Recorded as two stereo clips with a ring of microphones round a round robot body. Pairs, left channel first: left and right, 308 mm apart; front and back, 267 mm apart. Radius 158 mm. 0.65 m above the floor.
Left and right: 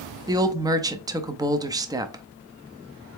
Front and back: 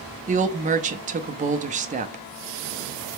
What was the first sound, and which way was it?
A woman speaking, 155° right.